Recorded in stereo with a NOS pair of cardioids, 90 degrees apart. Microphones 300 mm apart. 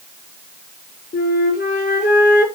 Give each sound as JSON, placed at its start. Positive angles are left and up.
{"t": 1.1, "sound": "a flute", "azimuth_deg": 35, "distance_m": 5.0}